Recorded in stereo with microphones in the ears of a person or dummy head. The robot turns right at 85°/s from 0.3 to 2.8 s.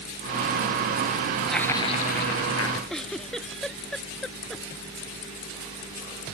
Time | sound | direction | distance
1.5 | laughter | straight ahead | ?
2.9 | a giggle | 5° left (ahead or behind) | ?